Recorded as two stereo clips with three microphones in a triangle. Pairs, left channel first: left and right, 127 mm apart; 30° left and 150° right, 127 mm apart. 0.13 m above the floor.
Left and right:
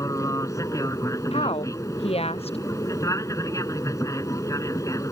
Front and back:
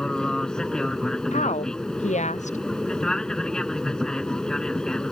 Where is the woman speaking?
50° left.